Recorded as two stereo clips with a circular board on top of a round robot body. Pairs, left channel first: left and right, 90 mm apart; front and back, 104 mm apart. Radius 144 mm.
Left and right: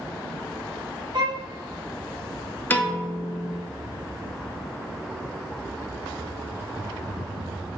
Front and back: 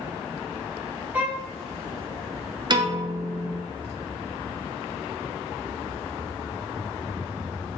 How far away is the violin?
About 1.0 m.